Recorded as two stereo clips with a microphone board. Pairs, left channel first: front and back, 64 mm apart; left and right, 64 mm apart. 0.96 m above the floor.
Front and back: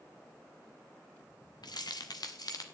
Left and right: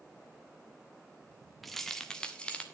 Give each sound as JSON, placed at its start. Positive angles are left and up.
{"t": 1.6, "sound": "keys jangling", "azimuth_deg": 0, "distance_m": 1.3}